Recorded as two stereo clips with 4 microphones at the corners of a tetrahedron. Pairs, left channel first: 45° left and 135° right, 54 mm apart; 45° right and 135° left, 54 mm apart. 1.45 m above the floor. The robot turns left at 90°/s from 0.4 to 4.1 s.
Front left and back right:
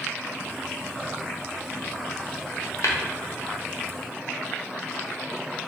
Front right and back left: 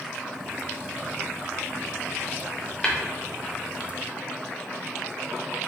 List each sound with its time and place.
2.8 s tapping: 30° left, 0.7 m; by 3.0 s 20° left, 0.7 m